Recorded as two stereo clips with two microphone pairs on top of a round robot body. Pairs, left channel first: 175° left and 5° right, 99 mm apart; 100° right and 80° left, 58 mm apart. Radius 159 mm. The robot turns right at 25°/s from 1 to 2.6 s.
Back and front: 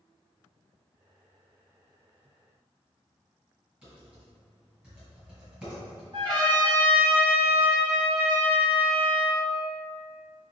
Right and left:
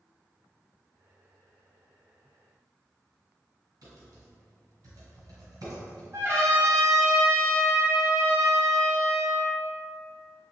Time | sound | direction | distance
3.8 | typing on a keyboard | 75° left | 1.8 m
6.1 | a trumpet | 40° left | 1.3 m